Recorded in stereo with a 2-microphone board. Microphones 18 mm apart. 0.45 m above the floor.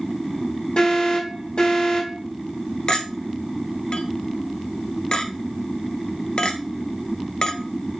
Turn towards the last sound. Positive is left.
turn(degrees=45)  # may be behind; listen again after turning